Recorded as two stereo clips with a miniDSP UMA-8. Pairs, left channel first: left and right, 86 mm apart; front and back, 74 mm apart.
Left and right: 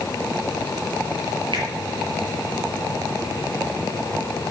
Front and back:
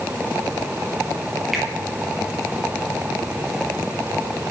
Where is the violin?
No violin in this recording.